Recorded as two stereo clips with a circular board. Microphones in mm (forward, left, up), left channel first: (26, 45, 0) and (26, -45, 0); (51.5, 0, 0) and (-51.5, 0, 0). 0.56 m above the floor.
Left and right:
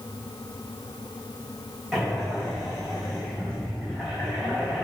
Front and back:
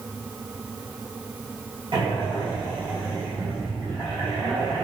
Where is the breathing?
175° right, 0.9 m.